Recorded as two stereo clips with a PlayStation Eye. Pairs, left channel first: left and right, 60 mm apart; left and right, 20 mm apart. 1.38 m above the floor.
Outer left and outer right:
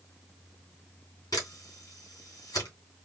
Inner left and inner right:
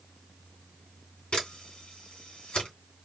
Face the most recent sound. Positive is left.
turn(degrees=85)